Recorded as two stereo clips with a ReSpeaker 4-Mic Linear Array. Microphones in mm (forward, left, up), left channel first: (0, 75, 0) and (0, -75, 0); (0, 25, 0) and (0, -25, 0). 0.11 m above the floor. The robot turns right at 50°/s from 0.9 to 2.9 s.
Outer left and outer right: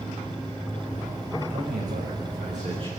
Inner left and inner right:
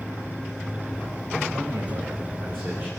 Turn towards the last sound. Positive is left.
turn(degrees=-35)